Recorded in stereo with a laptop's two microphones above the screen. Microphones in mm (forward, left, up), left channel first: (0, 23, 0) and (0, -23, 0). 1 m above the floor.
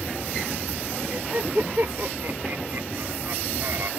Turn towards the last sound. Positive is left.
turn(degrees=-65)  # may be behind; listen again after turning